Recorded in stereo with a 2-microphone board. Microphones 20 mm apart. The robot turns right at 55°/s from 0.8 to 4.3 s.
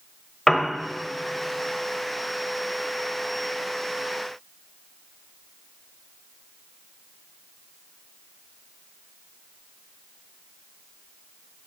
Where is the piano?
20° left (ahead or behind), 1.1 m.